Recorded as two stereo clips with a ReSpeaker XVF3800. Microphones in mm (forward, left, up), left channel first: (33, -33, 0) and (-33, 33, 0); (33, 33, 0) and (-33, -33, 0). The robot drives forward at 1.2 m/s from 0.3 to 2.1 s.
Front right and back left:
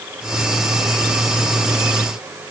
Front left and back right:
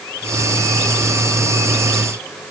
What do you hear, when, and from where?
Only background noise.